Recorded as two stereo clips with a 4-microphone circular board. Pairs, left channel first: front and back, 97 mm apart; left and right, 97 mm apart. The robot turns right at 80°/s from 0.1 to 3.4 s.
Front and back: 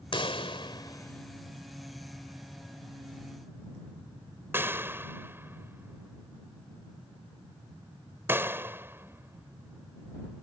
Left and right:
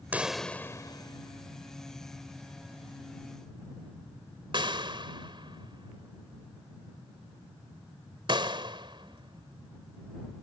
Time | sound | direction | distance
0.1 | a pop | 20° right | ?